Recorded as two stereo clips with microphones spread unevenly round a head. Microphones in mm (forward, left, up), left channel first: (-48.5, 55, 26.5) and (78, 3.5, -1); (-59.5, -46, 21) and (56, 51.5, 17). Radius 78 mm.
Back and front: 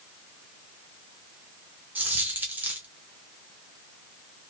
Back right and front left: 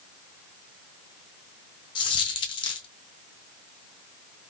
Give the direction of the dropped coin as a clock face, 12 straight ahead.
4 o'clock.